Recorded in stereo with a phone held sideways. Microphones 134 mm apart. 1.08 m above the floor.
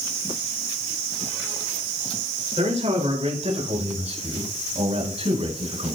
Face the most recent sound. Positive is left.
turn(degrees=-55)  # may be behind; listen again after turning